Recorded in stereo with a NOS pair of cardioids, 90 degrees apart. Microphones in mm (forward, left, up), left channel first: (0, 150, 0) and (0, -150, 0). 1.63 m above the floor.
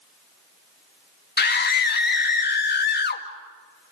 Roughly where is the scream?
Ahead left.